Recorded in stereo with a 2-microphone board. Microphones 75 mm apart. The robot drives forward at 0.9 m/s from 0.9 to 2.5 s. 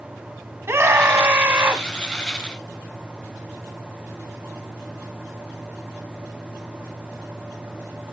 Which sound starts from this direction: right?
A scream, at 0.7 s.